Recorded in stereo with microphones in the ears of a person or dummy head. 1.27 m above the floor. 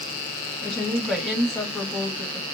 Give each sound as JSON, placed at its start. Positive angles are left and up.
{"t": 0.6, "sound": "a woman speaking", "side_deg": 0, "distance_m": 1.9}